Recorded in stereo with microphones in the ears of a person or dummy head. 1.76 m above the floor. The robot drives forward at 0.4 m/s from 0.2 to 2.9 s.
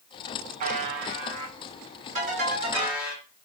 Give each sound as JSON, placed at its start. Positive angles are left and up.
{"t": 0.6, "sound": "a buzzer", "side_deg": -45, "distance_m": 0.6}
{"t": 2.1, "sound": "a ringtone", "side_deg": -50, "distance_m": 3.0}